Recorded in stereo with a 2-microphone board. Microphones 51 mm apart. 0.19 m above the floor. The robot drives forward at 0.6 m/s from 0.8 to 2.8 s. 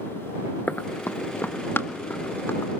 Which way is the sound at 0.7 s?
35° left (ahead or behind).